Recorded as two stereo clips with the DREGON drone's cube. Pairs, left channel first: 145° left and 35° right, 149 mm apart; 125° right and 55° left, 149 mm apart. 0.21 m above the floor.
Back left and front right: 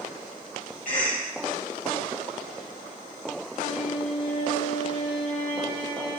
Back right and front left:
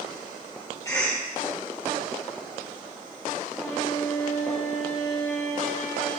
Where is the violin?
165° right, 2.5 m.